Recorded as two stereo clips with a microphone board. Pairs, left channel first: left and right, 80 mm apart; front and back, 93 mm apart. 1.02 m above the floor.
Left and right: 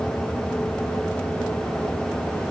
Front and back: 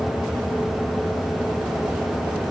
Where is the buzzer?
No buzzer in this recording.